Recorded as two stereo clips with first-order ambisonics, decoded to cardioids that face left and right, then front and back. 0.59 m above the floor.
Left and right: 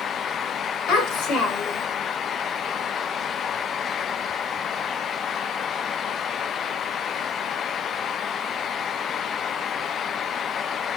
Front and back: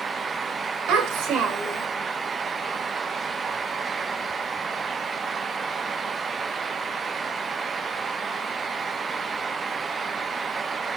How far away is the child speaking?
About 1.9 m.